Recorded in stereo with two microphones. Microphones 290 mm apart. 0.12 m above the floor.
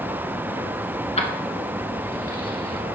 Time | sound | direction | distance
1.2 | keys jangling | 20° left (ahead or behind) | 0.9 m